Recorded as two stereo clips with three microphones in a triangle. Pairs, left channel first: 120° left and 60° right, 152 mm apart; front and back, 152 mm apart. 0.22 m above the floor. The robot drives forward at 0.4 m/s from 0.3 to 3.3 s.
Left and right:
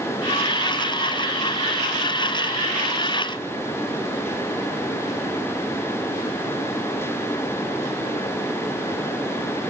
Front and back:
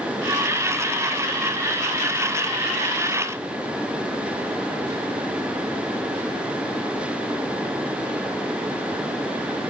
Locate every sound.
Only background noise.